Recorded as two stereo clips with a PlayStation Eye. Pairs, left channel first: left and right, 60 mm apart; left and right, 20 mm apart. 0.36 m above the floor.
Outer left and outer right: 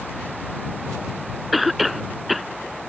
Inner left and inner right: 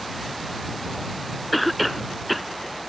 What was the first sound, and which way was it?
A cough, centre (ahead or behind).